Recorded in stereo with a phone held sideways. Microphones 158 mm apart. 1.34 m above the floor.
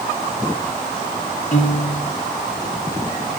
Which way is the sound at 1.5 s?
50° left (ahead or behind).